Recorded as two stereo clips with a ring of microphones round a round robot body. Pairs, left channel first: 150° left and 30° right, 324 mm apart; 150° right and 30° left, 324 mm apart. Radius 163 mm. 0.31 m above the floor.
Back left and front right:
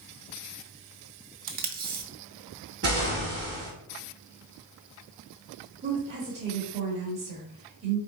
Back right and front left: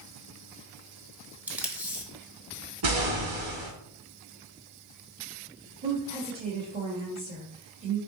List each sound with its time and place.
1.5 s tape being pulled: 50° right, 0.8 m
2.8 s an explosion: 25° left, 2 m
5.8 s a woman speaking: 5° right, 1.3 m